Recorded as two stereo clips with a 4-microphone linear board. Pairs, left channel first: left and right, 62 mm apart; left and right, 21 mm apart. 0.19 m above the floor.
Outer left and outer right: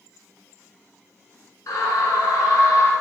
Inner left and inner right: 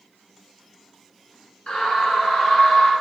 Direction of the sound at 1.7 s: 60° left (ahead or behind).